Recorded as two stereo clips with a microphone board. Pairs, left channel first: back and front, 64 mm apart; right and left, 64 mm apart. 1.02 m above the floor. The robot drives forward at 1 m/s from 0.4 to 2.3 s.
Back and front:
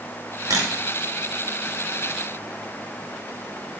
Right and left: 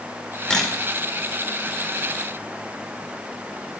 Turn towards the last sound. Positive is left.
turn(degrees=-25)